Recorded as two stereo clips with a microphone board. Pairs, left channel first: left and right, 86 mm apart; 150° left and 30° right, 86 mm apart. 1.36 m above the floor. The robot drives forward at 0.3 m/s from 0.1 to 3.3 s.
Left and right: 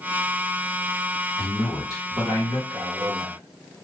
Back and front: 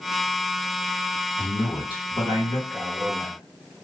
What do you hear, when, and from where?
1.4 s a man speaking: 130° left, 1.9 m; by 2.6 s 135° left, 2 m
2.7 s a man speaking: 110° right, 0.7 m; by 3.4 s 125° right, 0.8 m